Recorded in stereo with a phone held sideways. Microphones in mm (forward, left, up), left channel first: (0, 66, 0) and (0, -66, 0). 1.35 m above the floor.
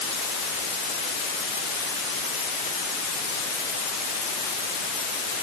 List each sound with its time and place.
Only background noise.